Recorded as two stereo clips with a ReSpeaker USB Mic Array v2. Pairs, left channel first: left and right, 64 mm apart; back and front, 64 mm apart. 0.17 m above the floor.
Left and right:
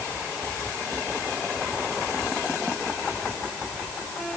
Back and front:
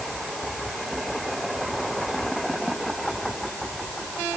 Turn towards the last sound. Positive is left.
No sound to turn to.